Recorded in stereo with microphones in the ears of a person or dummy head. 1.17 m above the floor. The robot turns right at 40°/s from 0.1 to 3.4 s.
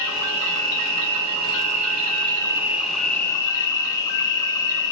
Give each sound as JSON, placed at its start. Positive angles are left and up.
{"t": 0.0, "sound": "an insect", "azimuth_deg": -115, "distance_m": 1.2}